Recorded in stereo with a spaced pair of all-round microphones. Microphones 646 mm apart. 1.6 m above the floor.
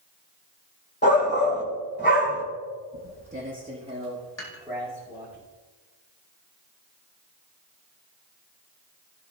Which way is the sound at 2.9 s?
20° right (ahead or behind).